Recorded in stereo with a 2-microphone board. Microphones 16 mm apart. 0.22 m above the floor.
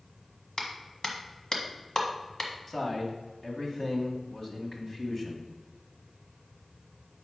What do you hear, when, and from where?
0.6 s a clap: 40° left (ahead or behind), 1.4 m
2.7 s a man speaking: 30° left (ahead or behind), 1.6 m